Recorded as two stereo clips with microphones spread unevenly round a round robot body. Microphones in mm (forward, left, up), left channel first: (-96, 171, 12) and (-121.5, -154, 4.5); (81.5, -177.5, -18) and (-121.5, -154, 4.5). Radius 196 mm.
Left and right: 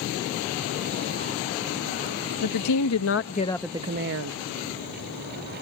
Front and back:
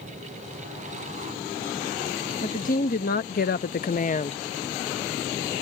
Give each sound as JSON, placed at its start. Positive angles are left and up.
{"t": 2.4, "sound": "a woman speaking", "azimuth_deg": 60}